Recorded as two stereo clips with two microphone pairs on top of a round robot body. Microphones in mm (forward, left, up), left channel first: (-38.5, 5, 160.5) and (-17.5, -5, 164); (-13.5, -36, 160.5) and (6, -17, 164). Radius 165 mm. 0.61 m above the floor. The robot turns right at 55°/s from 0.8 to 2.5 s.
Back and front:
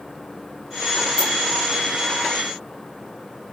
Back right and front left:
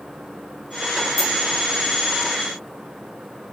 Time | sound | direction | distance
1.2 | a dropped coin | 140° right | 0.9 m